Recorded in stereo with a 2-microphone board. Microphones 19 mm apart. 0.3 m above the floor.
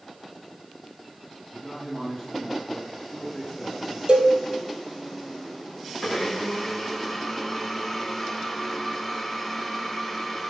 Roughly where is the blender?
Centre.